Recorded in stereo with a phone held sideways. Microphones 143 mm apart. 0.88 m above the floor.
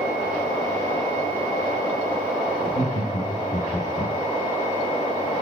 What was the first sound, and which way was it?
Laughter, 55° left (ahead or behind).